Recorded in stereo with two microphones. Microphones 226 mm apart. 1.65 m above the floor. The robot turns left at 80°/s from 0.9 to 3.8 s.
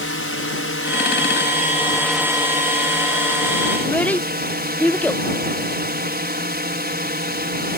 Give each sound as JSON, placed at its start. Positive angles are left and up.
{"t": 0.0, "sound": "a drone", "azimuth_deg": 100}
{"t": 3.8, "sound": "a child speaking", "side_deg": 5}